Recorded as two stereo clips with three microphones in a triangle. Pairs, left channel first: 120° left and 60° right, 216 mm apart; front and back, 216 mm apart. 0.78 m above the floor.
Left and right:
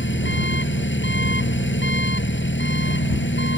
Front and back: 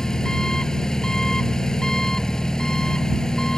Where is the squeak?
No squeak in this recording.